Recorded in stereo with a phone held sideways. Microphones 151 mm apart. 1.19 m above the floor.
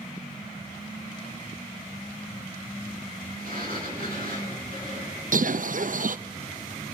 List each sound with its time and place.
3.4 s a sliding door: 75° right (ahead or behind), 8.5 m
5.3 s a bird: 60° right (ahead or behind), 0.6 m